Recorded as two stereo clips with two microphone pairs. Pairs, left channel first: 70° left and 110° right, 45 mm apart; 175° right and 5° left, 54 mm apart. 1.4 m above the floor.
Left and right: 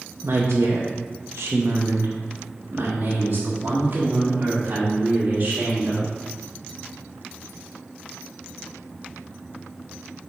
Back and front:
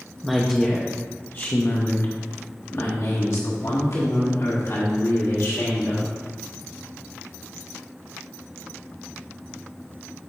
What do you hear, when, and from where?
0.2 s a woman speaking: 80° right, 0.7 m; by 6.1 s 165° right, 3 m